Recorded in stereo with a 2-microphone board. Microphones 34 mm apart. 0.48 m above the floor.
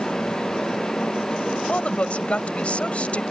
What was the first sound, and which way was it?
A woman speaking, 40° left (ahead or behind).